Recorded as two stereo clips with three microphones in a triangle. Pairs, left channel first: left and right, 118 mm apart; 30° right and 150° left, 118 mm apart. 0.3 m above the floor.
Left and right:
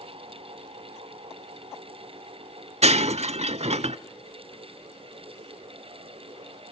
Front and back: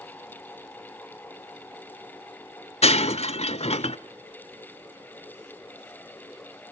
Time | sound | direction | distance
2.8 | breaking glass | 60° right | 0.5 m